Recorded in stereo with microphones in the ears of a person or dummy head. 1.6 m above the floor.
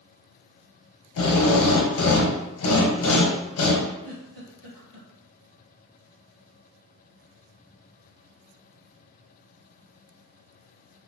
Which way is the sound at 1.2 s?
75° left (ahead or behind).